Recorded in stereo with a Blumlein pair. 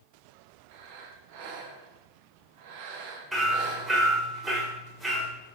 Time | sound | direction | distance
0.7 | breathing | 50° right | 0.6 m
3.3 | hammering | 10° right | 1.4 m